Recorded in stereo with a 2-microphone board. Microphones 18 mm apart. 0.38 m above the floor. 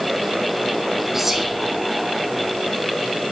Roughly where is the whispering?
Centre.